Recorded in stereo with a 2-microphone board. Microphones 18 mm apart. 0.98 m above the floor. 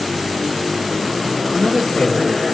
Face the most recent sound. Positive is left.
turn(degrees=75)  # may be behind; listen again after turning